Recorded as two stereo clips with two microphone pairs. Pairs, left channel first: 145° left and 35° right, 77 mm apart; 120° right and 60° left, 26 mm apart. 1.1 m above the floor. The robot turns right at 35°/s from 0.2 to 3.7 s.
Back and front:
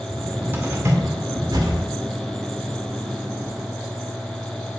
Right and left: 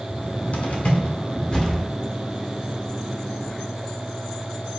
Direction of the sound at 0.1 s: 105° right.